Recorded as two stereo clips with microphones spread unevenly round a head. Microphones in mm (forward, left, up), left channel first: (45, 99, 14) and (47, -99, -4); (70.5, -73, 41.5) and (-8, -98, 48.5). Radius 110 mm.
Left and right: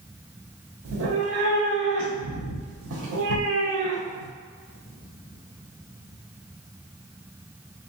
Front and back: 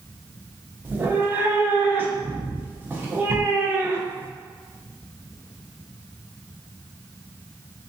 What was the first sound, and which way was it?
A cat meowing, 100° right.